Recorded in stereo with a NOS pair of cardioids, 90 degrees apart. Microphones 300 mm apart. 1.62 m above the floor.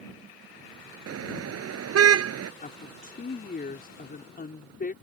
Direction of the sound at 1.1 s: 55° right.